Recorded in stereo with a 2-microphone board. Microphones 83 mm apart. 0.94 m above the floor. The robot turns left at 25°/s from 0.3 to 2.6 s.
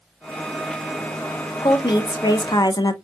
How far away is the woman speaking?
About 0.5 m.